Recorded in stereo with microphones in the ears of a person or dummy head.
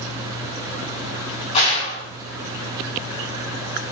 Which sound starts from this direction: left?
A gunshot, at 1.5 s.